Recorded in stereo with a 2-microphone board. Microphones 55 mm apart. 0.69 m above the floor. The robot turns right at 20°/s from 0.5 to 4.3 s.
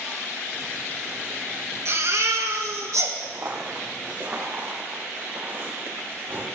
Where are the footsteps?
50° right (ahead or behind), 3 m; by 6.5 s 40° right (ahead or behind), 8 m.